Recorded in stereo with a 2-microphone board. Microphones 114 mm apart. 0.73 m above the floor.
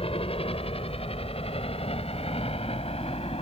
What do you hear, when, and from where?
0.0 s a helicopter: 55° left (ahead or behind); by 3.4 s 60° left (ahead or behind)